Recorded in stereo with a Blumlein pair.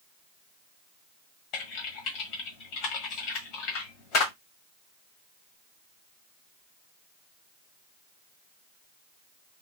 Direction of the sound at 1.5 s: 40° left.